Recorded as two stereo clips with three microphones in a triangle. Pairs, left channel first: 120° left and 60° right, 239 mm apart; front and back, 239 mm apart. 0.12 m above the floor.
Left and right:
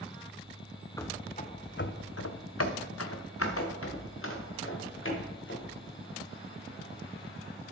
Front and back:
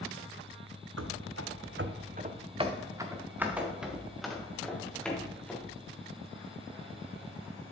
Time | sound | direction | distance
1.0 | running footsteps | 165° right | 0.6 m